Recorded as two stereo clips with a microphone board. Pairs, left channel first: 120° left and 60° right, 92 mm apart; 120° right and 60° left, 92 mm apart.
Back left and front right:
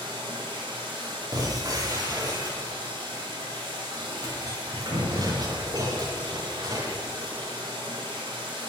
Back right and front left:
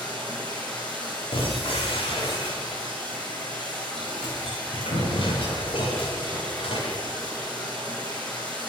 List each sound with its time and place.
0.0 s running water: 45° right, 7 m
1.3 s breaking glass: 110° right, 7.5 m